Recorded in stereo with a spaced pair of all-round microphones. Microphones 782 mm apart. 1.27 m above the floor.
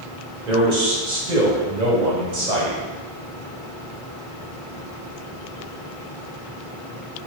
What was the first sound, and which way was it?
A man speaking, 60° right (ahead or behind).